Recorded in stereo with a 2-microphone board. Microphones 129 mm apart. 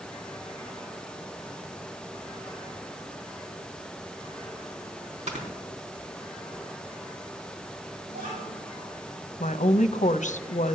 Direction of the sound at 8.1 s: 85° right.